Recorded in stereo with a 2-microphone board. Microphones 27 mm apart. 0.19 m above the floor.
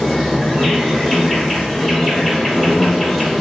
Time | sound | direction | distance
0.0 | an insect | 5° left (ahead or behind) | 1.4 m